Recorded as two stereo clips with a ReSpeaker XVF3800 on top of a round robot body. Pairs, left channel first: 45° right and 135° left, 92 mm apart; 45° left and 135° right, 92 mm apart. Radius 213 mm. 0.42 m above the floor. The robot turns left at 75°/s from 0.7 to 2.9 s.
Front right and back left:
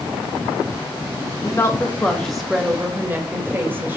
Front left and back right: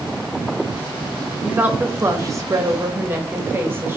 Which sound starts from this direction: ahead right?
A woman speaking, at 1.4 s.